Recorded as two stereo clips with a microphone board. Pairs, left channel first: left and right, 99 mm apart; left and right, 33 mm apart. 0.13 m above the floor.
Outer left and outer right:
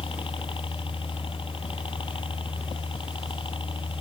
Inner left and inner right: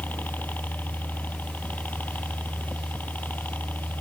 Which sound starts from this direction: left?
A helicopter, at 0.0 s.